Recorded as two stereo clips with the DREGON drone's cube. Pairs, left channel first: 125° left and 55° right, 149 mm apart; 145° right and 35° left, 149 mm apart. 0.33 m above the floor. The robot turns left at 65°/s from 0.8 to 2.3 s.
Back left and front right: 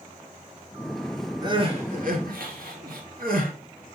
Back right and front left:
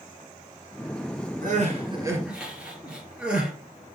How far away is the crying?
About 2 m.